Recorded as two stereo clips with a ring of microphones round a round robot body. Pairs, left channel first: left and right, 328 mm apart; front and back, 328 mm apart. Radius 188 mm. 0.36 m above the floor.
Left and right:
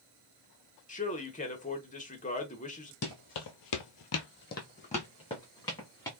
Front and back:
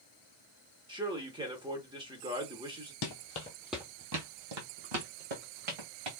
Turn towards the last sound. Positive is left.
turn(degrees=170)